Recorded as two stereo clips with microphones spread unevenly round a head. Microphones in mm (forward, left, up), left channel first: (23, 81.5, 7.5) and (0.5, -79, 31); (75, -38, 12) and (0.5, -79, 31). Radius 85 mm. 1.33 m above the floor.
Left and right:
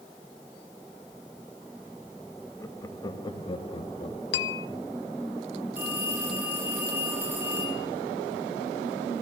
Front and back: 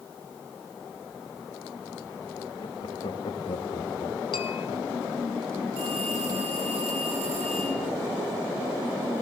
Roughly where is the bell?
Left.